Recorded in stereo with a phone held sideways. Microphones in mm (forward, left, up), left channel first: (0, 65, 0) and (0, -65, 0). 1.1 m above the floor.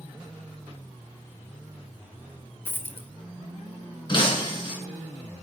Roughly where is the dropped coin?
Centre.